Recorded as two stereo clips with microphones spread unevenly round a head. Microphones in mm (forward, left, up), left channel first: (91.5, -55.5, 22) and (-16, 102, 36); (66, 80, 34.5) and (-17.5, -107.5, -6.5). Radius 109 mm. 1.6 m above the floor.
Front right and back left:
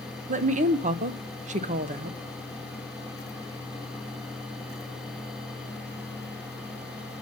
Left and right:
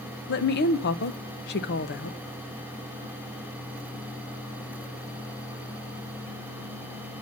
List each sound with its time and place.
0.3 s a woman speaking: 80° left, 0.9 m